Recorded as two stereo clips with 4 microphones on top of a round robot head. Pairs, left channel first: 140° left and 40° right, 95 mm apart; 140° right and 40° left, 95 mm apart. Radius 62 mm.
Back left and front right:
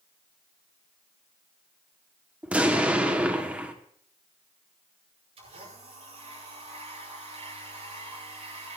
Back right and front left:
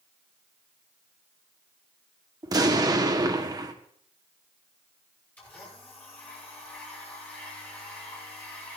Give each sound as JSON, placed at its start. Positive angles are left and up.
{"t": 2.4, "sound": "an explosion", "azimuth_deg": 30, "distance_m": 1.6}
{"t": 5.4, "sound": "a blender", "azimuth_deg": -65, "distance_m": 10.0}